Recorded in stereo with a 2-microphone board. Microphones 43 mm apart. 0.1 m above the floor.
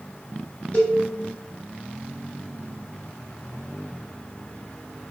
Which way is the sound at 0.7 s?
30° left (ahead or behind).